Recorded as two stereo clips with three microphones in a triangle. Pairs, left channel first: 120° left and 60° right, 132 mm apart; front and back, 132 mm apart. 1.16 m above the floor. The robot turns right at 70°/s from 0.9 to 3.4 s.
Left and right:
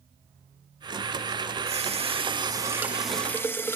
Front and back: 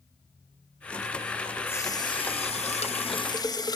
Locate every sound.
1.7 s a running tap: 70° right, 0.5 m; by 3.8 s 55° left, 0.5 m